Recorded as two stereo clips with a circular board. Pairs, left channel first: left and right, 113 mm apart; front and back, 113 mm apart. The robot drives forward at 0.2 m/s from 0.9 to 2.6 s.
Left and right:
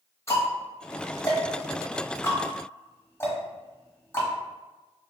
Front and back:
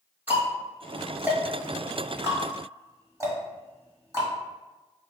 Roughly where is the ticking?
Behind left.